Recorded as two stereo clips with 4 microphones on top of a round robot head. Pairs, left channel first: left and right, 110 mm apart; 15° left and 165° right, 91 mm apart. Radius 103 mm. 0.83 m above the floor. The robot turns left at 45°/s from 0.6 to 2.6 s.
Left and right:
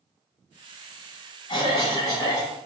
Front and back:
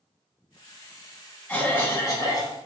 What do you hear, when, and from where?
1.5 s a cough: 70° left, 1.3 m; by 2.5 s 25° left, 1.3 m